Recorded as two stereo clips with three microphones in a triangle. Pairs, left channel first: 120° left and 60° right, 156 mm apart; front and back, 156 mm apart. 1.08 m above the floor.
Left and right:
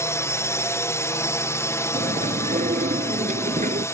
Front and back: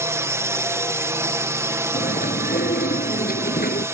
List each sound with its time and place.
0.0 s a drone: 150° left
1.9 s chewing: 25° right